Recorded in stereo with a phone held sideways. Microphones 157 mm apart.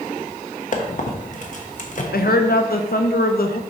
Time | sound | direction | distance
0.7 | a squeak | 55° left (ahead or behind) | 1.1 m
2.1 | a woman speaking | 75° left (ahead or behind) | 0.7 m